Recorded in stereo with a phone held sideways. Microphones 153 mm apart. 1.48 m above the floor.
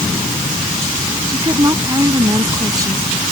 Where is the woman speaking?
25° right (ahead or behind).